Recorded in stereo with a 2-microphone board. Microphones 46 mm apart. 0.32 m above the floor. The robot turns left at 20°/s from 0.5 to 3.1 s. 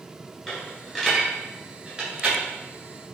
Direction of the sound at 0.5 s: 5° left (ahead or behind).